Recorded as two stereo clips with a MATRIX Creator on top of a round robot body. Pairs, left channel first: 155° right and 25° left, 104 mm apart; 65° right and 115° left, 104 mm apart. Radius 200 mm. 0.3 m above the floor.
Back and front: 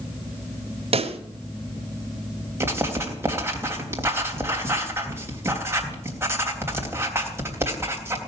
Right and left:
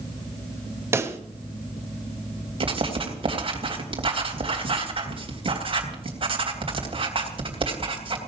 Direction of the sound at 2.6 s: 85° left.